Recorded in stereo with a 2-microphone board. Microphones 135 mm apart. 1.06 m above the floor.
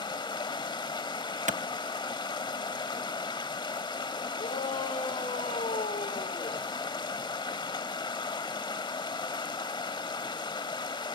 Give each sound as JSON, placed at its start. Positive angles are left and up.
{"t": 0.0, "sound": "running water", "side_deg": 35, "distance_m": 1.0}
{"t": 1.5, "sound": "a clap", "side_deg": -65, "distance_m": 0.7}
{"t": 4.4, "sound": "a shout", "side_deg": 80, "distance_m": 4.0}